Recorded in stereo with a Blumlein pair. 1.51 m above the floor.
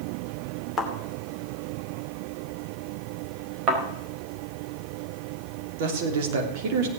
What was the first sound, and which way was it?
A thud, 10° left.